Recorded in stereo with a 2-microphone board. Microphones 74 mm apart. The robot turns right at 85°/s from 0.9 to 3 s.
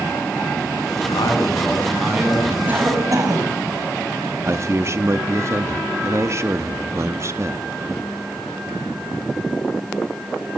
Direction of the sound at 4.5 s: 40° right (ahead or behind).